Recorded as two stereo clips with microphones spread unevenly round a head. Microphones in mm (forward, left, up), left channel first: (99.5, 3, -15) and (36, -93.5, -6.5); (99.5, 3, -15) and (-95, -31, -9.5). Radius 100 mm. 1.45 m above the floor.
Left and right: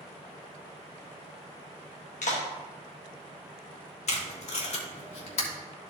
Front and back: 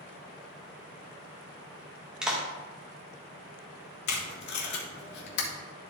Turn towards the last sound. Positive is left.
turn(degrees=40)